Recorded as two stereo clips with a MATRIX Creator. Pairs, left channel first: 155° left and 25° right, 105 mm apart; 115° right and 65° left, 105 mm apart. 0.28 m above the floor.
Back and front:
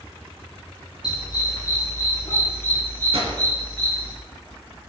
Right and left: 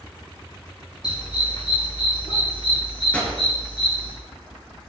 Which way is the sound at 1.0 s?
155° right.